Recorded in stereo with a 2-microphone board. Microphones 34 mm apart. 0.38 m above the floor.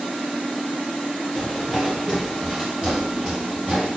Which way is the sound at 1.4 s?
5° right (ahead or behind).